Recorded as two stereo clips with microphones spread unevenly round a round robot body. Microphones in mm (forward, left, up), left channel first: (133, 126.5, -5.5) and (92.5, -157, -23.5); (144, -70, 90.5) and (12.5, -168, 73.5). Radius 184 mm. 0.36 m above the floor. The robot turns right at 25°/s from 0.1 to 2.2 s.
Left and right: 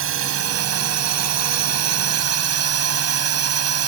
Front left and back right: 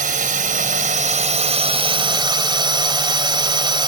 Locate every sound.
0.0 s a drone: 140° right; by 3.9 s 90° right